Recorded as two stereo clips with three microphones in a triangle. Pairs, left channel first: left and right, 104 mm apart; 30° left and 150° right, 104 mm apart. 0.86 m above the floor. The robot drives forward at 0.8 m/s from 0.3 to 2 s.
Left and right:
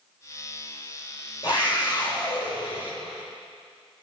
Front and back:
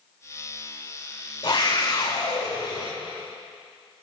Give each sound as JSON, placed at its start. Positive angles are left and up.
{"t": 1.4, "sound": "a scream", "azimuth_deg": 55, "distance_m": 4.0}